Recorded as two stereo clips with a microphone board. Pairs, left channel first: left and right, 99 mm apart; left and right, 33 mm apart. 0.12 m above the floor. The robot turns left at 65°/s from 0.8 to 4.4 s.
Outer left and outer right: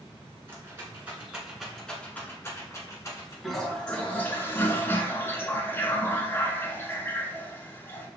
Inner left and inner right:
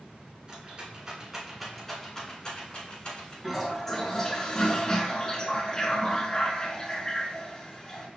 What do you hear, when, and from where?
0.5 s a rattle: 25° right (ahead or behind), 1.5 m; by 3.3 s 25° left (ahead or behind), 1.5 m
3.4 s a toilet flushing: centre (ahead or behind), 0.8 m; by 8.1 s 25° left (ahead or behind), 0.8 m